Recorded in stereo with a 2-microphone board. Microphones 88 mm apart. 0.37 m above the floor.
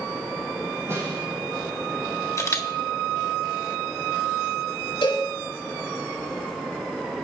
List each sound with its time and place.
0.9 s a snare drum: 30° right (ahead or behind), 7.5 m
2.4 s a camera shutter: 35° left (ahead or behind), 1.6 m
5.0 s a cowbell: 75° left (ahead or behind), 5 m